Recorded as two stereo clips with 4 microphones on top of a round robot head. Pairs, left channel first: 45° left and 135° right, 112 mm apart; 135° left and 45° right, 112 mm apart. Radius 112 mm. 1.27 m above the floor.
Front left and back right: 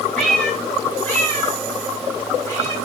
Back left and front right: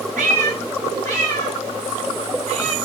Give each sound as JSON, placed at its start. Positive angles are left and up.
{"t": 0.2, "sound": "a cat meowing", "azimuth_deg": -45, "distance_m": 2.5}